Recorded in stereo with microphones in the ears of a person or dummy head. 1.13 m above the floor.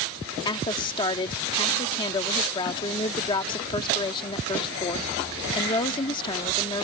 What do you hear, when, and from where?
0.5 s a woman speaking: 25° left (ahead or behind)